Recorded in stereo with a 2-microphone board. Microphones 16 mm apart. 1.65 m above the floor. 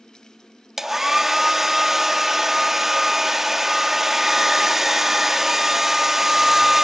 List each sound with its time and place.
0.8 s a hair dryer: 20° right (ahead or behind), 1.3 m